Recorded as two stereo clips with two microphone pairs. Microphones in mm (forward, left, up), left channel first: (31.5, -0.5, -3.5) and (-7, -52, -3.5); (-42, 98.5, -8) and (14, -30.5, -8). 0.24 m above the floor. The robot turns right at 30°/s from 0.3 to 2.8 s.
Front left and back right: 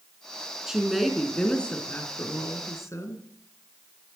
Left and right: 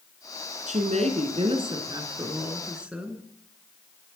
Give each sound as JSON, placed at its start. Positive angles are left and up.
{"t": 0.7, "sound": "a woman speaking", "azimuth_deg": -50, "distance_m": 3.0}